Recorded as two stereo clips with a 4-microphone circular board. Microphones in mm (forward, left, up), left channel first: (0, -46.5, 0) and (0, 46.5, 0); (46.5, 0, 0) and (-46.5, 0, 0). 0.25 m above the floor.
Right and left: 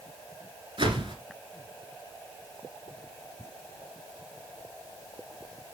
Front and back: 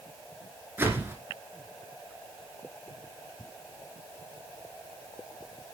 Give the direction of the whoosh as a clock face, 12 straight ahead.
8 o'clock.